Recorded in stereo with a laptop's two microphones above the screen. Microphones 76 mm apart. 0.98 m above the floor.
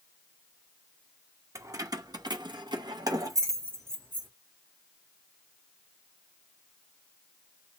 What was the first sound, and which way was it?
Keys jangling, 45° right (ahead or behind).